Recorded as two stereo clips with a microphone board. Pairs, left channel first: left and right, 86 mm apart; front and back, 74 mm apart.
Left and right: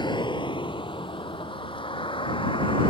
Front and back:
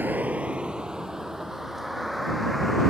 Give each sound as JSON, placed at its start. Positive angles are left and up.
{"t": 0.0, "sound": "a vehicle", "azimuth_deg": 115}